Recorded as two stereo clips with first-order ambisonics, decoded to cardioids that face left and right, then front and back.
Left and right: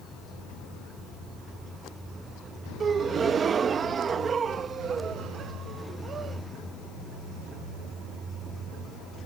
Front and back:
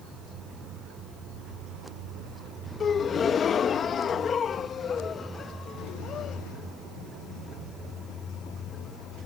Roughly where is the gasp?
Ahead right.